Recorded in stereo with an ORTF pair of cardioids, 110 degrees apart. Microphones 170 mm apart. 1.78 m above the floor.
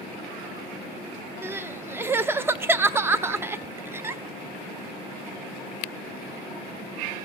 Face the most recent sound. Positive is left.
turn(degrees=-15)